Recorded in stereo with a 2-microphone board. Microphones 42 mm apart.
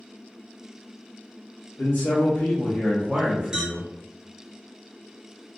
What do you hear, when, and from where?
1.8 s a man speaking: 70° left (ahead or behind), 1.0 m; by 3.9 s 40° right (ahead or behind), 1.1 m
3.5 s a clink: 15° right (ahead or behind), 0.9 m